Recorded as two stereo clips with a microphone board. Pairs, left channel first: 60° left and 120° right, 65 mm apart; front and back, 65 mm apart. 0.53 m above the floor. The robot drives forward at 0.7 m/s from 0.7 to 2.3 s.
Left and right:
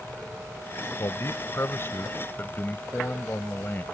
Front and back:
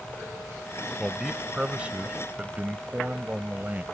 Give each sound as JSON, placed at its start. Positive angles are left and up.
{"t": 1.0, "sound": "a man speaking", "azimuth_deg": 90}